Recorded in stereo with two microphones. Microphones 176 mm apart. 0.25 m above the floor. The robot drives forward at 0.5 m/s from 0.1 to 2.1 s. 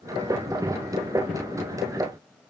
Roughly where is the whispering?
I don't hear whispering.